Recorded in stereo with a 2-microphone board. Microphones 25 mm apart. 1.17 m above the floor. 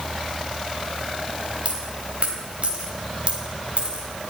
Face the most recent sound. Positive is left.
turn(degrees=-55)  # may be behind; listen again after turning